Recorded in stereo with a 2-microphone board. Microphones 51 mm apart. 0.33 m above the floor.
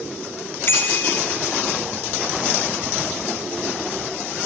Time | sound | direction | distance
0.7 | a bicycle bell | 45° left (ahead or behind) | 2 m